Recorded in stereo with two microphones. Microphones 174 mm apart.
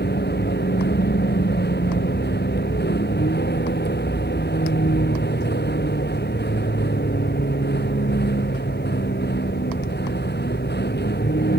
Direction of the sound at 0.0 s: 80° left.